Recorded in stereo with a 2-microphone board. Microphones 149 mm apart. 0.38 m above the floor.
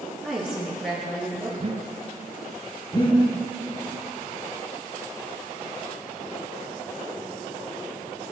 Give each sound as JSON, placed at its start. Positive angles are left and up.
{"t": 0.2, "sound": "a woman speaking", "side_deg": -5, "distance_m": 6.5}
{"t": 1.6, "sound": "breathing", "side_deg": -40, "distance_m": 0.9}
{"t": 2.9, "sound": "breathing", "side_deg": 30, "distance_m": 3.5}